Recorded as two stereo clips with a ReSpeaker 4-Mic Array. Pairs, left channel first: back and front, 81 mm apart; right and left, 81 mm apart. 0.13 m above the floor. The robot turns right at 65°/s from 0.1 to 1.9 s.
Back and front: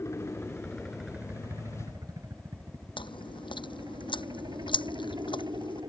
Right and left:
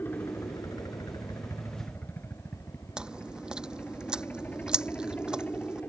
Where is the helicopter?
145° right; by 5.9 s 20° right.